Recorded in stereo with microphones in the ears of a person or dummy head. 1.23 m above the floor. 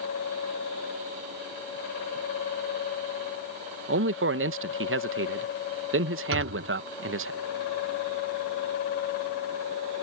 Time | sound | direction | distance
3.9 | a man speaking | 70° right (ahead or behind) | ?
6.3 | a thud | 80° right | ?